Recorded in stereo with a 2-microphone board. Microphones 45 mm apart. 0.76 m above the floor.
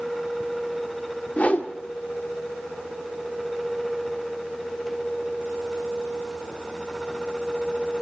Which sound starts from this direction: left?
A whoosh, at 1.4 s.